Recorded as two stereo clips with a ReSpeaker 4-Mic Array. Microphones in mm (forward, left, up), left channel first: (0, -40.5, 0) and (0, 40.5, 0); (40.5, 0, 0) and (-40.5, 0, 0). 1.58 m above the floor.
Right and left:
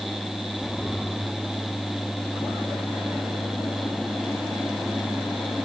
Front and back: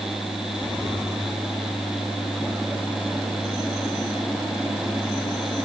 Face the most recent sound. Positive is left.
No sound to turn to.